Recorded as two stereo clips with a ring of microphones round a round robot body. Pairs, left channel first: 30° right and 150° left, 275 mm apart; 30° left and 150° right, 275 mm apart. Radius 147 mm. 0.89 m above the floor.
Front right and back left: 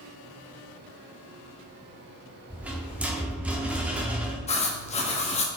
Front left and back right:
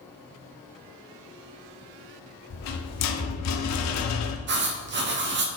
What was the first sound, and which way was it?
A rattle, 65° left.